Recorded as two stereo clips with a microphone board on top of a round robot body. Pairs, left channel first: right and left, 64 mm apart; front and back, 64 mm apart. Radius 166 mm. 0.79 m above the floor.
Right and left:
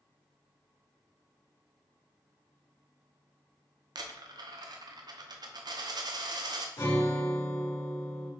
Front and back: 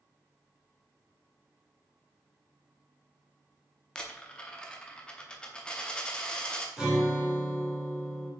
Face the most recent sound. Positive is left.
turn(degrees=-100)